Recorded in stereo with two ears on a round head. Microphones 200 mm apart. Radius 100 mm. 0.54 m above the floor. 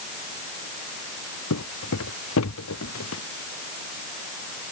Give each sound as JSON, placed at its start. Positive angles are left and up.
{"t": 1.5, "sound": "footsteps", "side_deg": 80}